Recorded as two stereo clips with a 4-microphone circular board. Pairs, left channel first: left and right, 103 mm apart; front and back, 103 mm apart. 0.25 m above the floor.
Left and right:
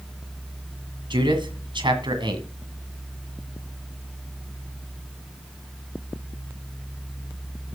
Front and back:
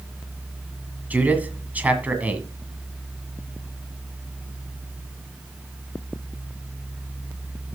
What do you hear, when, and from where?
1.1 s a man speaking: 110° right, 1.8 m